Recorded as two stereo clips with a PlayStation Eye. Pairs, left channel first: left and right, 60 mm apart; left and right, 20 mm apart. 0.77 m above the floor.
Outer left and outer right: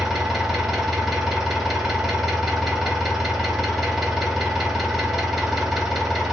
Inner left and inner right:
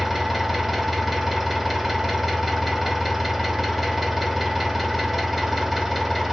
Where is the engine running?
5° right (ahead or behind), 1.1 m.